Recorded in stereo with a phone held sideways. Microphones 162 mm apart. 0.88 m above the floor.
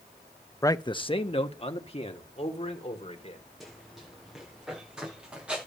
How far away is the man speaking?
About 0.6 m.